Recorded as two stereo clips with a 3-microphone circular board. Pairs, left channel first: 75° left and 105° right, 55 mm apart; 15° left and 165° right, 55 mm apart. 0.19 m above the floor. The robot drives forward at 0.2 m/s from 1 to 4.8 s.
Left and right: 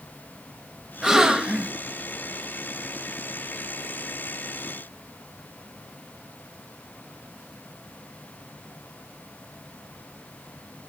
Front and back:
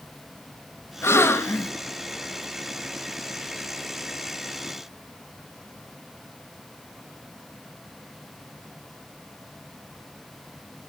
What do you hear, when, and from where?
1.0 s a gasp: 25° right, 0.8 m; by 1.7 s 30° right, 0.7 m